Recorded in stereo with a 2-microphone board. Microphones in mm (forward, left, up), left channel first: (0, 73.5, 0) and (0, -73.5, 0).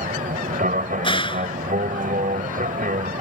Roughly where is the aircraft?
Right.